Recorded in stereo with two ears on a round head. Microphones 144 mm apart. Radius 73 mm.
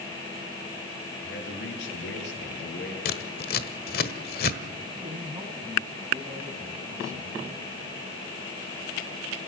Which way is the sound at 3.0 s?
60° left (ahead or behind).